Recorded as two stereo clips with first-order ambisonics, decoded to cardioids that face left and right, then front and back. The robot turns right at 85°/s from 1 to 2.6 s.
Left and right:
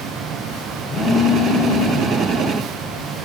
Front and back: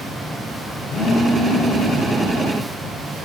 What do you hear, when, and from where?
0.9 s a phone buzzing: 20° left, 4 m; by 2.2 s 120° left, 4 m